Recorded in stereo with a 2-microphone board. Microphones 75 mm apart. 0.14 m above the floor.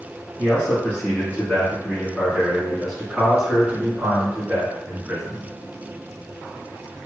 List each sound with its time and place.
0.4 s a man speaking: 30° left (ahead or behind), 2.0 m; by 5.5 s 25° right (ahead or behind), 2.5 m